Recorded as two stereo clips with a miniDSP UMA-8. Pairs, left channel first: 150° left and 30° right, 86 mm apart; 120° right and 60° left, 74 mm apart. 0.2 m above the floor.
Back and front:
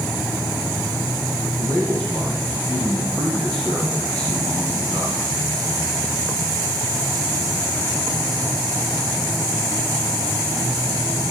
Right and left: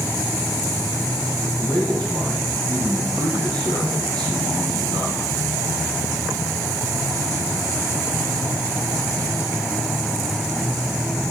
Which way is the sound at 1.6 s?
75° left.